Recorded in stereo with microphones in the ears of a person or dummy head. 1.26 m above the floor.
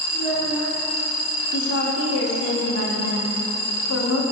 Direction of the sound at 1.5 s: 85° left.